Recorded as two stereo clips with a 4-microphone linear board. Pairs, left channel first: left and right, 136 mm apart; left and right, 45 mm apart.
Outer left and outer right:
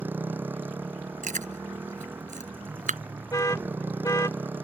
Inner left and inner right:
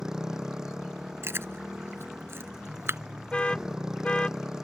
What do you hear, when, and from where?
0.0 s a motorcycle: 15° right (ahead or behind)
1.2 s chewing: 70° right (ahead or behind)
3.3 s an alarm: 25° left (ahead or behind)